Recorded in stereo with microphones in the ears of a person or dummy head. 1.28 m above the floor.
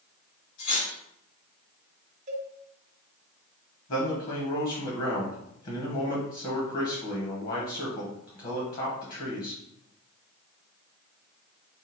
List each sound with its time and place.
0.6 s cutlery clinking: 70° left (ahead or behind), 1.6 m
2.3 s a cowbell: 40° right (ahead or behind), 0.7 m
3.9 s a man speaking: 45° left (ahead or behind), 1.0 m